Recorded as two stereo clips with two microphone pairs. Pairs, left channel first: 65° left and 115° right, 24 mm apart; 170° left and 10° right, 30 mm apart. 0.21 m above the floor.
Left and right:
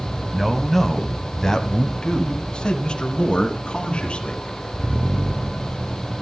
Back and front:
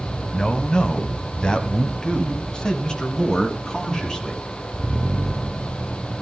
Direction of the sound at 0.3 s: 175° left.